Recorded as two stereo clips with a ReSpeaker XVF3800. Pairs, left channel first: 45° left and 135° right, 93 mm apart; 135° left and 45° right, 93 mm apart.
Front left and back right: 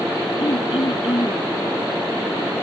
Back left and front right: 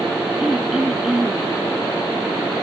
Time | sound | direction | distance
0.4 | throat clearing | 40° left | ?